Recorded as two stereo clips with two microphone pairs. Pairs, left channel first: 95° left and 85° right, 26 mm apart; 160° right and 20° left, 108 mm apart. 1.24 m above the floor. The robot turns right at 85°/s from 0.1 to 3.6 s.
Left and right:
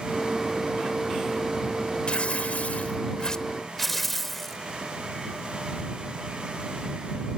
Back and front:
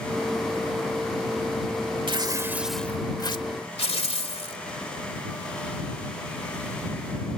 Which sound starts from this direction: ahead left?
Tearing paper, at 2.1 s.